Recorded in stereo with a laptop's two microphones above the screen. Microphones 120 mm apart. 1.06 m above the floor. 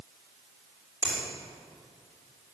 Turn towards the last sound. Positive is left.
turn(degrees=-15)  # may be behind; listen again after turning